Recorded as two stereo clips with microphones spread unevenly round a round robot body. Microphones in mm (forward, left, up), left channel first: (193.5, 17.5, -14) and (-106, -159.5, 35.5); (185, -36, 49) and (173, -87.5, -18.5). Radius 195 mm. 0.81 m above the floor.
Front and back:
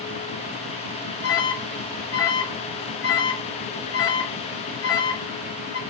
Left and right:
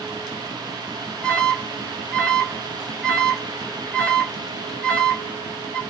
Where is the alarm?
15° right, 5 m.